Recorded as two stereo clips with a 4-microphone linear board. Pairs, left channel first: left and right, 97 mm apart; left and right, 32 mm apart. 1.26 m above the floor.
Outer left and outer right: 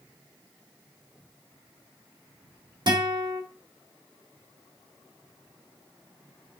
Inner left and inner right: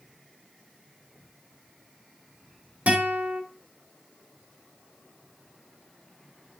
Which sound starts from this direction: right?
A guitar, at 2.9 s.